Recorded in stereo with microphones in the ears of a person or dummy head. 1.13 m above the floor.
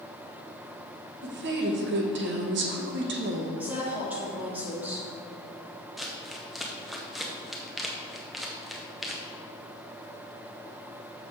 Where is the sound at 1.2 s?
55° right (ahead or behind), 1.1 m.